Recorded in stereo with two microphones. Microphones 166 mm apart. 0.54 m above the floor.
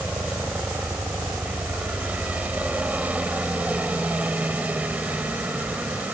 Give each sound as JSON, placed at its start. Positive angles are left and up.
{"t": 0.0, "sound": "a helicopter", "side_deg": -10}